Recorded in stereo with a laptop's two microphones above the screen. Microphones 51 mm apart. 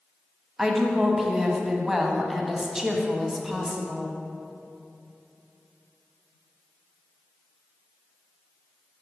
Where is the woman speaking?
10° right (ahead or behind), 0.9 m.